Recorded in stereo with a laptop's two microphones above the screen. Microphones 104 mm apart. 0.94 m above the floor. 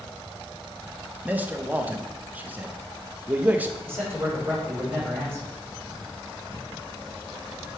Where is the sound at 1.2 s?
15° right (ahead or behind), 0.6 m.